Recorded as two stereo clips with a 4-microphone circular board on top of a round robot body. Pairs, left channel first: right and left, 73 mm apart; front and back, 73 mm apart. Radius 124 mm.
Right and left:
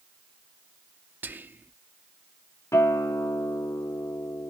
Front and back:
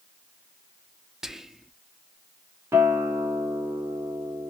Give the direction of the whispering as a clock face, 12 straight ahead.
9 o'clock.